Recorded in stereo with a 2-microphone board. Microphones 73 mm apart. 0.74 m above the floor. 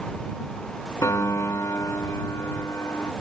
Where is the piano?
50° left (ahead or behind).